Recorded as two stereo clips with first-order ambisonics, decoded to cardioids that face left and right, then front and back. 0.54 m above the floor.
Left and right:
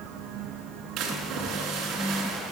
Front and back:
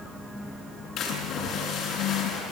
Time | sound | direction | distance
1.0 | a splash | 50° right | 6 m